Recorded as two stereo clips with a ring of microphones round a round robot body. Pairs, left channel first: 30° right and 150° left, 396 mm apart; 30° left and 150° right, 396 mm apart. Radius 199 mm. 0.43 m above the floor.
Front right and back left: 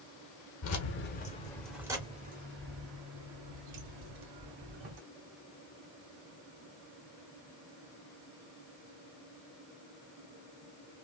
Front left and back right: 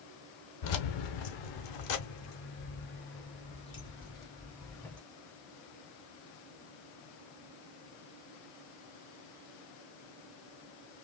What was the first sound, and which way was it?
Keys jangling, 15° left.